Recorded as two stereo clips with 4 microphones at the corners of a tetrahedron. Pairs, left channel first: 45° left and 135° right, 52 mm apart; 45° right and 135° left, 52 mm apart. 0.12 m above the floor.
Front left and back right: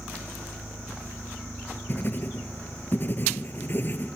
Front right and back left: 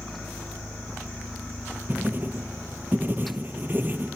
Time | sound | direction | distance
1.9 | writing | 90° left | 0.9 m